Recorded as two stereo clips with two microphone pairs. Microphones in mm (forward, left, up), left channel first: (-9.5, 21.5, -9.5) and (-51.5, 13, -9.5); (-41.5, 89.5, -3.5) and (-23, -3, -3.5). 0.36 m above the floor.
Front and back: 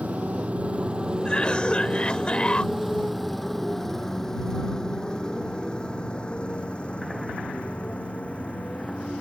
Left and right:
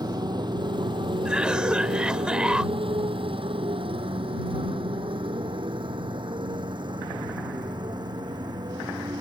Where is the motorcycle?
120° right; by 9.2 s 45° right.